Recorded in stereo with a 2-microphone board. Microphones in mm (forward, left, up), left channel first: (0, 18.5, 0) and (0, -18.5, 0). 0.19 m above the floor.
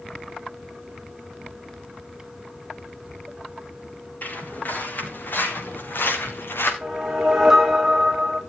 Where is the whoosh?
10° right (ahead or behind), 2.5 m.